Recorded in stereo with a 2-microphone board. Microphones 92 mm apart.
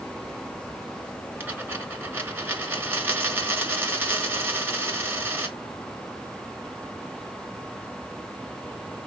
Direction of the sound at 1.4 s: 25° right (ahead or behind).